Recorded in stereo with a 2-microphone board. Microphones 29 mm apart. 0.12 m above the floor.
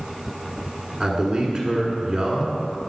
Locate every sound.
1.0 s a man speaking: 20° right (ahead or behind), 1.3 m